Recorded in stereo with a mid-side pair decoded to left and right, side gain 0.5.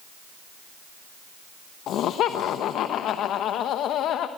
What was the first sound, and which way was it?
Laughter, 70° left.